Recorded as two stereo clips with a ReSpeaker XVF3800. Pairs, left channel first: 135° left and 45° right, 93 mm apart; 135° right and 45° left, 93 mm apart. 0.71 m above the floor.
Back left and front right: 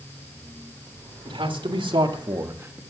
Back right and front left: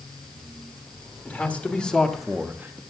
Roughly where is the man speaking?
Ahead right.